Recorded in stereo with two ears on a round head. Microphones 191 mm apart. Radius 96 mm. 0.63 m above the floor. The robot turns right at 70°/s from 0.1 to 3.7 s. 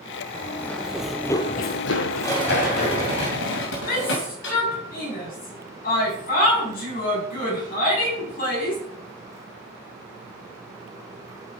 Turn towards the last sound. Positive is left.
turn(degrees=45)  # may be behind; listen again after turning